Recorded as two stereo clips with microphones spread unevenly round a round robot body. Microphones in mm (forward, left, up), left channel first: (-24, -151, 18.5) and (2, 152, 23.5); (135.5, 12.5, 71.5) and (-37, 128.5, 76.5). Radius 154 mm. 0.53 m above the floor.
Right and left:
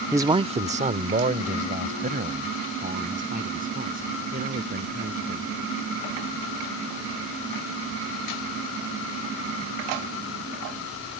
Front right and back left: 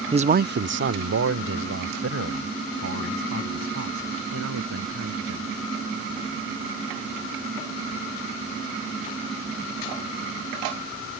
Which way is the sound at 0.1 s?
160° left.